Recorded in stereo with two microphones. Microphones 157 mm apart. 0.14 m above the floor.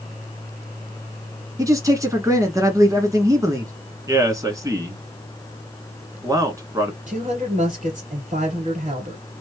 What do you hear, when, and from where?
1.6 s a man speaking: 20° right (ahead or behind), 1.2 m
4.1 s a man speaking: 20° right (ahead or behind), 1.2 m
7.1 s a woman speaking: 50° right (ahead or behind), 2.5 m